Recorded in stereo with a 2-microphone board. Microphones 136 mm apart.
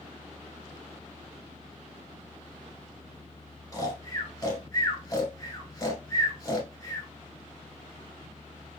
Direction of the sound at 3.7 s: 25° left (ahead or behind).